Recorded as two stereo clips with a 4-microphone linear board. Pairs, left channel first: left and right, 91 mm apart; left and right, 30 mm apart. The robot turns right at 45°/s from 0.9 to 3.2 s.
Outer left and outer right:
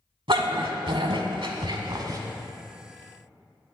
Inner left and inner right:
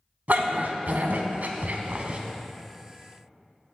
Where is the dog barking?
75° right (ahead or behind), 0.8 m; by 2.2 s 45° right (ahead or behind), 0.8 m.